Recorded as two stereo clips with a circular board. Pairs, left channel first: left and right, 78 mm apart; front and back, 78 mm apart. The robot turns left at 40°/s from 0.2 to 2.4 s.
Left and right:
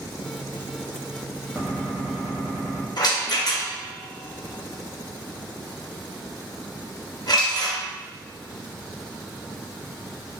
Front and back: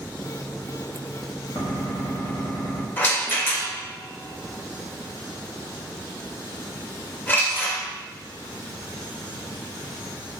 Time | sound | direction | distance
1.6 | a gunshot | 15° right | 1.0 m
3.0 | a rattle | 60° left | 0.6 m